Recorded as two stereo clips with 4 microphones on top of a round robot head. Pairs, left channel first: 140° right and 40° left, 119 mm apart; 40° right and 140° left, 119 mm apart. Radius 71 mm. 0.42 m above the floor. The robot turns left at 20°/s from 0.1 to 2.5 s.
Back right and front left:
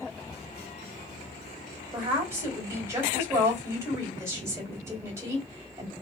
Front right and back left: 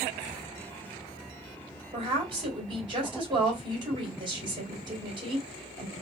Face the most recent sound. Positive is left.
turn(degrees=100)